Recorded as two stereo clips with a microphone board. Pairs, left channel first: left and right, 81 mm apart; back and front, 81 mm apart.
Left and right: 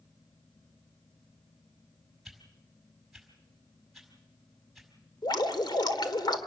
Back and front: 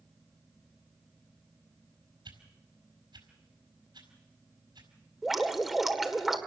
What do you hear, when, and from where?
2.2 s a whoosh: 5° right, 4.5 m
5.2 s dripping: 85° left, 1.8 m